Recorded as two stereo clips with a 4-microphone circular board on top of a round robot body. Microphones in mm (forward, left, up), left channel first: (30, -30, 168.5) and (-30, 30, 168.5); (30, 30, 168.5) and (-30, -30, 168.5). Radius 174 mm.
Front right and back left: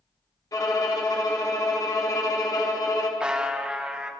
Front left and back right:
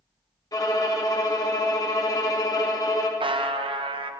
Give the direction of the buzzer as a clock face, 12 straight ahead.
5 o'clock.